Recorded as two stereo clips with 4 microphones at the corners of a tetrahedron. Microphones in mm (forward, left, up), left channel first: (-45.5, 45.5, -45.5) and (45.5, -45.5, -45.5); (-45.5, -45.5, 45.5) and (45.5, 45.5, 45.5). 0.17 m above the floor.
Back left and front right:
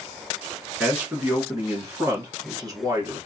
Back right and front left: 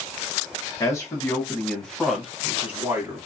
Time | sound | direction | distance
0.8 | a man speaking | 110° right | 1.4 m